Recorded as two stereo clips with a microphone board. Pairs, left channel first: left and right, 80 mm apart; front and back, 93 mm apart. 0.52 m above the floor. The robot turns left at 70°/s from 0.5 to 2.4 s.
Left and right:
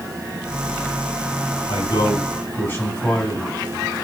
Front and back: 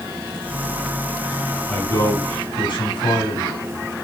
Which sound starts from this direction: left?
A man speaking, at 1.7 s.